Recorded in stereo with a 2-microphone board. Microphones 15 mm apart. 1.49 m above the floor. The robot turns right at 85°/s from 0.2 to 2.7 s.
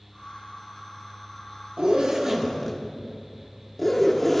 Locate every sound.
1.8 s a zipper: 65° right, 1.1 m; by 4.4 s 15° left, 1.1 m